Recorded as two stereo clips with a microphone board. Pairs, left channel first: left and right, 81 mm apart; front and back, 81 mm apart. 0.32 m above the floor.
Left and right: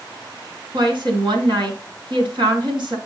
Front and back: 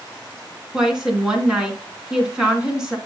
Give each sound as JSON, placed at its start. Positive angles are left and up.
{"t": 0.7, "sound": "a woman speaking", "azimuth_deg": -100, "distance_m": 3.0}